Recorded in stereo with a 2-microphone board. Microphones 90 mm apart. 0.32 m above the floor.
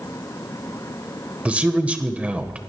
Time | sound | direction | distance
1.4 | a man speaking | 15° right (ahead or behind) | 1.3 m